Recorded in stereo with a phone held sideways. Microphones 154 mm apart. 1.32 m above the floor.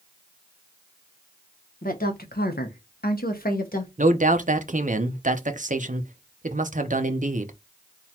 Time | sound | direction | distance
1.8 | a woman speaking | 60° left (ahead or behind) | 1.0 m
4.0 | a man speaking | 55° right (ahead or behind) | 0.7 m